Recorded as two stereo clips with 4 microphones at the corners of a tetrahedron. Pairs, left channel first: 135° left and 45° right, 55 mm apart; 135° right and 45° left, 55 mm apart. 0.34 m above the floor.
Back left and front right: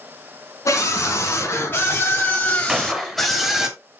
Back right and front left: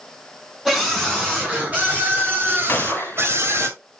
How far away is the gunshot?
About 0.7 m.